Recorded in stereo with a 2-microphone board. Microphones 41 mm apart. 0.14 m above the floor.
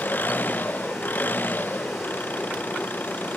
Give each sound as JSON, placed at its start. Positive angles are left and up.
{"t": 0.0, "sound": "an engine running", "side_deg": 50}